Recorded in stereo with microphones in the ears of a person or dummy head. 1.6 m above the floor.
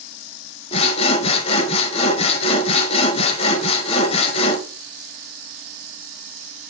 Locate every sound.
0.7 s sawing: 35° left (ahead or behind), 1.0 m